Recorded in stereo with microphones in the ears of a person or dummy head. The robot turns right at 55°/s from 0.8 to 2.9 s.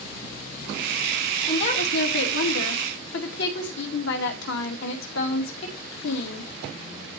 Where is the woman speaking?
30° left, 2.5 m; by 6.5 s 110° left, 2.5 m.